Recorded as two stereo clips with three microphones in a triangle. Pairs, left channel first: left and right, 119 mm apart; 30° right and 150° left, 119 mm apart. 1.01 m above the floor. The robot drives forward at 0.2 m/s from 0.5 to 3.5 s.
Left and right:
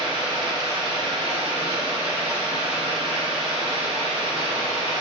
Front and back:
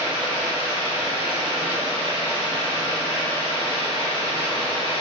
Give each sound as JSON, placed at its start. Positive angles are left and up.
{"t": 0.0, "sound": "running water", "azimuth_deg": -40, "distance_m": 1.6}